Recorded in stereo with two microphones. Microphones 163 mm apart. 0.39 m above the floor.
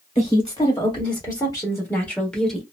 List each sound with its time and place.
0.1 s a woman speaking: 35° left (ahead or behind), 1.5 m; by 2.6 s centre (ahead or behind), 1.2 m